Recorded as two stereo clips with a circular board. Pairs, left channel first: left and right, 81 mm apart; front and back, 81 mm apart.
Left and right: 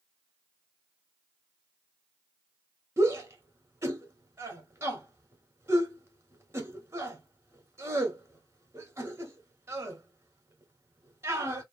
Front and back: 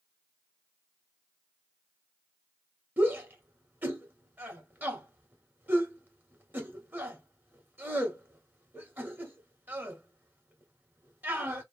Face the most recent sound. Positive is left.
turn(degrees=-125)